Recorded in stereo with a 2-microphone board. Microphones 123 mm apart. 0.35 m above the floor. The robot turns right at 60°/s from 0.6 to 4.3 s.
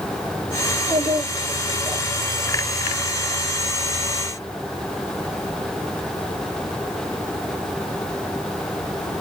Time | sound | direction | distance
0.7 | a child speaking | 95° right | 7 m